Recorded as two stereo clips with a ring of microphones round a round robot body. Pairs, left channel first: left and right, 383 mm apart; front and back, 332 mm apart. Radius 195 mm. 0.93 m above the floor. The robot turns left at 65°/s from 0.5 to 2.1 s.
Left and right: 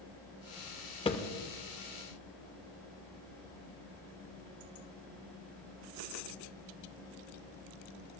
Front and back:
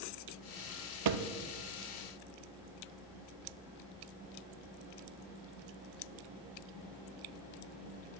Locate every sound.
1.1 s a thud: 165° left, 0.9 m; by 1.3 s 150° left, 0.9 m